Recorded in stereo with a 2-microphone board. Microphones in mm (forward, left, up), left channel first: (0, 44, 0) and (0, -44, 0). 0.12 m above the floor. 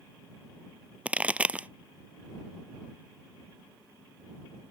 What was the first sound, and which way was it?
A pop, 15° right (ahead or behind).